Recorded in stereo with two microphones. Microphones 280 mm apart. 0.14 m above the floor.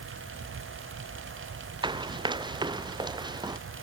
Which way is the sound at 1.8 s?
15° right (ahead or behind).